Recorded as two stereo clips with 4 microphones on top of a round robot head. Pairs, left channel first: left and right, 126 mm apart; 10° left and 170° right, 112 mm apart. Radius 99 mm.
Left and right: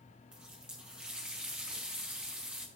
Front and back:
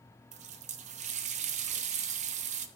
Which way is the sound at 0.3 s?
175° right.